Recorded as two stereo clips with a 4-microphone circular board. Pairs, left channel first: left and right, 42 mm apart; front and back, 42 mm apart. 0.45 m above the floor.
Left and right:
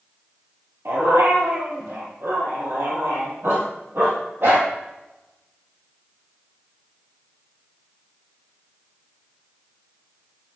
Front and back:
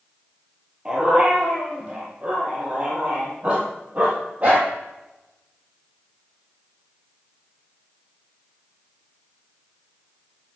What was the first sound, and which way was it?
A dog barking, 110° right.